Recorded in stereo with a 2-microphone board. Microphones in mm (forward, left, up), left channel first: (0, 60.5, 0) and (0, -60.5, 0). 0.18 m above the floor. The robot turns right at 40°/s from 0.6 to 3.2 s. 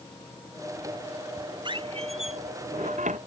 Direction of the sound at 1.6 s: 40° right (ahead or behind).